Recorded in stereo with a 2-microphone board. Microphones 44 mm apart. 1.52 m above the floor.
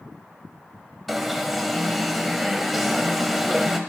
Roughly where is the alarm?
Centre.